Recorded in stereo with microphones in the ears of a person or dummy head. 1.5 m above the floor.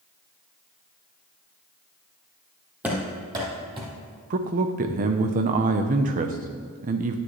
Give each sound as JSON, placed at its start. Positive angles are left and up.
{"t": 2.8, "sound": "running footsteps", "side_deg": -10, "distance_m": 2.0}
{"t": 4.3, "sound": "a man speaking", "side_deg": -40, "distance_m": 0.7}